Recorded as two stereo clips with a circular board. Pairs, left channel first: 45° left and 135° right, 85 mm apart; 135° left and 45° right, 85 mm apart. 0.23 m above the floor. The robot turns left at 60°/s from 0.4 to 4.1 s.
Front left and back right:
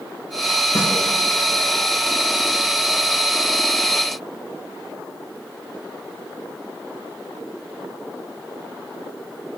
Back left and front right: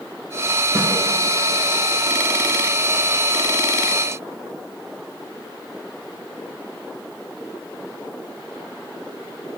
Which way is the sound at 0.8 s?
10° left.